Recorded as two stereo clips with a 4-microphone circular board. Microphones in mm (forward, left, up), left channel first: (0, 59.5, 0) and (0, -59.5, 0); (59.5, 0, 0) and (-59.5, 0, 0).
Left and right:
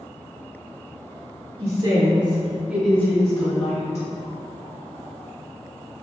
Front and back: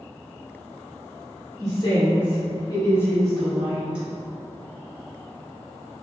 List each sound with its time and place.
1.6 s a woman speaking: 55° right, 1.9 m; by 4.0 s 105° left, 1.6 m